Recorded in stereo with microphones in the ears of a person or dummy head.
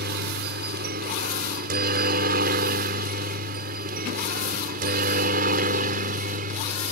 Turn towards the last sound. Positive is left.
turn(degrees=-45)  # may be behind; listen again after turning